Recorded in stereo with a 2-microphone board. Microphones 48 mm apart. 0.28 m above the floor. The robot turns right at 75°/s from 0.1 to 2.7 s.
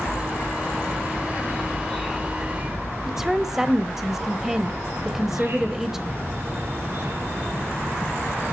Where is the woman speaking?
10° right (ahead or behind), 0.9 m.